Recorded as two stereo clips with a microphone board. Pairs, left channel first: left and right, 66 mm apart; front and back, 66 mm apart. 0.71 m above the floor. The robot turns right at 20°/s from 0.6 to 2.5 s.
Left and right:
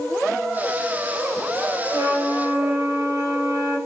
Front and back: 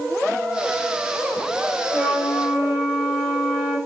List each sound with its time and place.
1.9 s a flute: 100° right, 1.8 m; by 3.8 s 85° right, 1.8 m